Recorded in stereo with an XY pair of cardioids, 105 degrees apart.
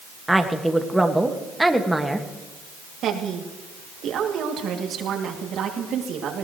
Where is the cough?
No cough in this recording.